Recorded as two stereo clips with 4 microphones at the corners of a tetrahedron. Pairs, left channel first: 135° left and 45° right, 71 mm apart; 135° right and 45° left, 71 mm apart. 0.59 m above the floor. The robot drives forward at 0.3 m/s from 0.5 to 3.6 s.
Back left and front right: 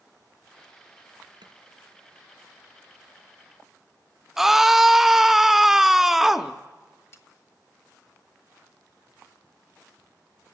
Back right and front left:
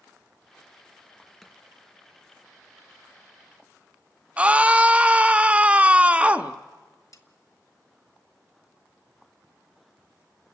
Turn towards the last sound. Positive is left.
turn(degrees=-175)